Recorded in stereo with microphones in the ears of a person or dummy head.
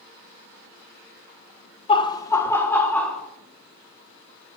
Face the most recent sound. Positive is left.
turn(degrees=0)  # may be behind; listen again after turning